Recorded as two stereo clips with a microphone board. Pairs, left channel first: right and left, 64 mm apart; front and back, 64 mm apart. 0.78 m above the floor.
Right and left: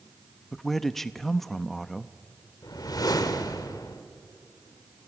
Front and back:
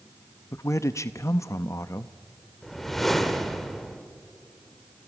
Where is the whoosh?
85° right, 1.5 m.